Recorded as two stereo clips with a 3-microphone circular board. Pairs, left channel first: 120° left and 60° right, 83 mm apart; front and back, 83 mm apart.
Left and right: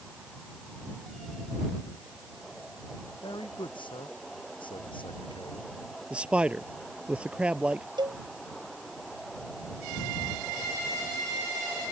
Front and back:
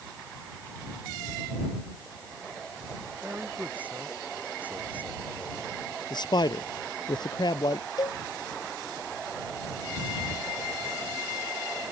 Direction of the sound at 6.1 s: 15° left.